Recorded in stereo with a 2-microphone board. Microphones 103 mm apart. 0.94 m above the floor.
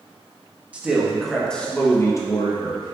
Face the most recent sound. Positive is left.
turn(degrees=55)  # may be behind; listen again after turning